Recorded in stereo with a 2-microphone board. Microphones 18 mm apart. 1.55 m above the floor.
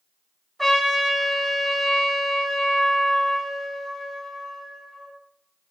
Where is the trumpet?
15° left (ahead or behind), 0.9 m.